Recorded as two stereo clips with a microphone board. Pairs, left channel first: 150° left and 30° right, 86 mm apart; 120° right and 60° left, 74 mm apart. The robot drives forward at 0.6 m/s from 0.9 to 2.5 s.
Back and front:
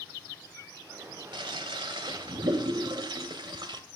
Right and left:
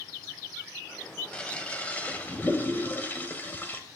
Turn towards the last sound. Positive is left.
turn(degrees=-55)